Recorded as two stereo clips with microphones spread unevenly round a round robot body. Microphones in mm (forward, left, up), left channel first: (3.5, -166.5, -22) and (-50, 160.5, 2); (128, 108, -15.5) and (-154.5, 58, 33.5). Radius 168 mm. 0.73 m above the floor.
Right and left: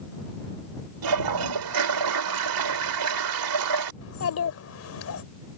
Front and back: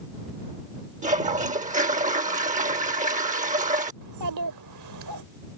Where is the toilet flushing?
125° left.